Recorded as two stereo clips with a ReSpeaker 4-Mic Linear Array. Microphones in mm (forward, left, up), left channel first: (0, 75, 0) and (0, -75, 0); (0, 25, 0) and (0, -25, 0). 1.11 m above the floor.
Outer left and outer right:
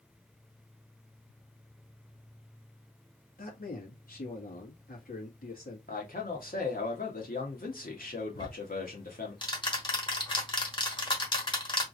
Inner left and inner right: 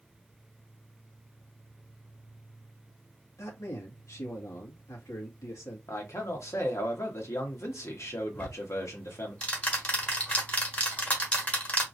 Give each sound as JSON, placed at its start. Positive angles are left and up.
{"t": 3.4, "sound": "a man speaking", "side_deg": 80, "distance_m": 2.0}
{"t": 5.9, "sound": "a man speaking", "side_deg": 75, "distance_m": 1.7}
{"t": 8.3, "sound": "ticking", "side_deg": 30, "distance_m": 1.3}